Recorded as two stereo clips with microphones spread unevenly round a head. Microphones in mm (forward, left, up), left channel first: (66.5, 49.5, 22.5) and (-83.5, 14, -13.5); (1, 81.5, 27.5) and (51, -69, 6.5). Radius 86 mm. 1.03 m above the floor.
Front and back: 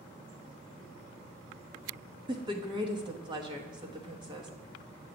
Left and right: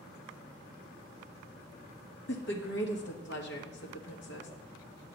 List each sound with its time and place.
2.3 s a woman speaking: 135° left, 1.2 m